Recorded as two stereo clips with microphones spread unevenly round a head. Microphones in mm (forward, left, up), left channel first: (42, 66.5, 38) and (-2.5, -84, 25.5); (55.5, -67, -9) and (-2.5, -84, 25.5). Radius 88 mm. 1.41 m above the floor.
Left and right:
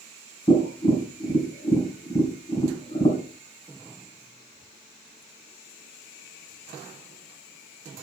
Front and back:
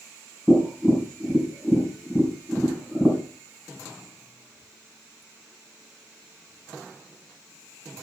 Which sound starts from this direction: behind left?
Tapping, at 0.5 s.